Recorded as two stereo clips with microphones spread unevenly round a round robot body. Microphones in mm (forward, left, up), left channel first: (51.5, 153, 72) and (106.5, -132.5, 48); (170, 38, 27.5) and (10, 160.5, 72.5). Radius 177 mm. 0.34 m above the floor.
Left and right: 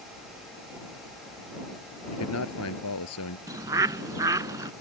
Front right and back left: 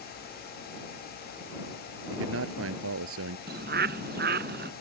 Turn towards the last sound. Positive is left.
turn(degrees=-160)